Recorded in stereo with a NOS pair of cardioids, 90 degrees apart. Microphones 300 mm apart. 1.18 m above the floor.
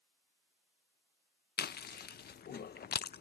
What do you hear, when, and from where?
1.6 s chewing: 35° left